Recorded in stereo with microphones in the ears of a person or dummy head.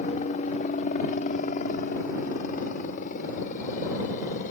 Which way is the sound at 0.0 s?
40° left (ahead or behind).